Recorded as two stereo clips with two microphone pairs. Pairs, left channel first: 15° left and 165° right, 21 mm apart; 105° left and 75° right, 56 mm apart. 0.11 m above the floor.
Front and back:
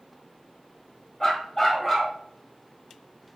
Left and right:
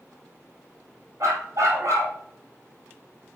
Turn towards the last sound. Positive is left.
turn(degrees=-55)